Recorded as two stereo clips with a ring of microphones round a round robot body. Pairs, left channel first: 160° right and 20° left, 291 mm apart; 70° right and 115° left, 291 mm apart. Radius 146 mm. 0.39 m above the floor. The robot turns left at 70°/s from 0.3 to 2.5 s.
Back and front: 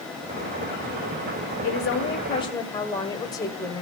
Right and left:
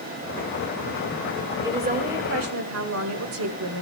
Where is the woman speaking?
170° right, 1.9 m; by 3.8 s 130° left, 1.9 m.